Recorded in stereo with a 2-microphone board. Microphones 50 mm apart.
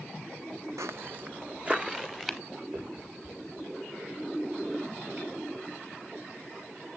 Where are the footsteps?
75° right (ahead or behind), 0.5 m; by 2.4 s 5° right (ahead or behind), 1.3 m.